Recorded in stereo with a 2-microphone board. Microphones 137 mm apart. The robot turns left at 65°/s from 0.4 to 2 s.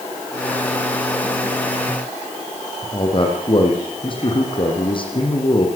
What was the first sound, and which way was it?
A man speaking, 40° left (ahead or behind).